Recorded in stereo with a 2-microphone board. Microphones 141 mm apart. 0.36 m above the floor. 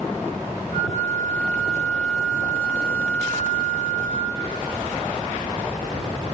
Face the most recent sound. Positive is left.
turn(degrees=-70)  # may be behind; listen again after turning